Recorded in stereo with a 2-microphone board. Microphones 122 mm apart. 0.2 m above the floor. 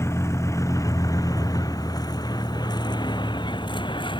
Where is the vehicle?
20° left (ahead or behind); by 4.2 s 40° left (ahead or behind).